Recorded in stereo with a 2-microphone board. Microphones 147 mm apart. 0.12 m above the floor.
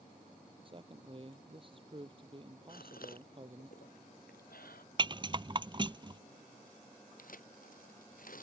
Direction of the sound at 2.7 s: 85° left.